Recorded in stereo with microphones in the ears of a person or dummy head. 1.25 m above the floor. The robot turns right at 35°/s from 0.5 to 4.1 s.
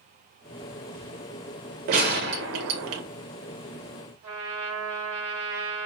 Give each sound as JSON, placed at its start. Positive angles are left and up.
{"t": 1.9, "sound": "a gunshot", "azimuth_deg": -130, "distance_m": 0.5}
{"t": 4.2, "sound": "a trumpet", "side_deg": -30, "distance_m": 0.9}